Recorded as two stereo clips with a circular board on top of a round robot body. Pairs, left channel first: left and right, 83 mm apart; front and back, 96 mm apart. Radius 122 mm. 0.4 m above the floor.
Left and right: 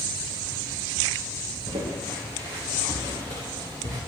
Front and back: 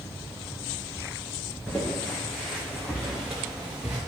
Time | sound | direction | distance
1.7 | footsteps | 85° right | 4 m